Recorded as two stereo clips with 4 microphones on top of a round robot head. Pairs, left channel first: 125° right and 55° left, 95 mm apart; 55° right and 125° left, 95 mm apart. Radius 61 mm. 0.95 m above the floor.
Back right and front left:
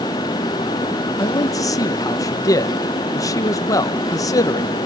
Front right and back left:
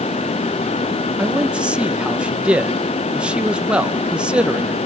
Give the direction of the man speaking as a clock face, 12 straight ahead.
5 o'clock.